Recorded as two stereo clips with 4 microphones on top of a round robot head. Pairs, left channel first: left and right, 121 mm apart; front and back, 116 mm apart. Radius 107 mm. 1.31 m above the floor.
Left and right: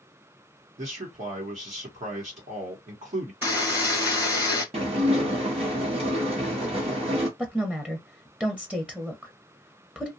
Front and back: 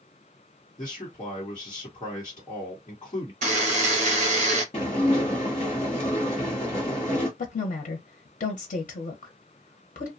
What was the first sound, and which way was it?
A man speaking, 65° right.